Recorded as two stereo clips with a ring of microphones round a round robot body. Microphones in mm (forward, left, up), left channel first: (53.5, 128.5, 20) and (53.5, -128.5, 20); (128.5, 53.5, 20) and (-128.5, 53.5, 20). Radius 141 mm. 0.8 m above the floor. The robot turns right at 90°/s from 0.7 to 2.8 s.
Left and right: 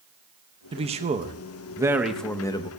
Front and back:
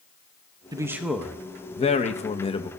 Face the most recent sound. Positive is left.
turn(degrees=60)